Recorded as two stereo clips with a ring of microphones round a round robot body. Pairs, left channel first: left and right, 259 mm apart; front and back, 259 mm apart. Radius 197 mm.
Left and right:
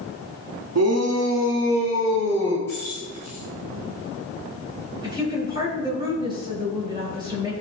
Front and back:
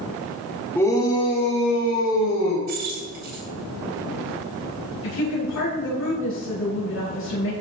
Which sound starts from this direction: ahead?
A woman speaking, at 5.0 s.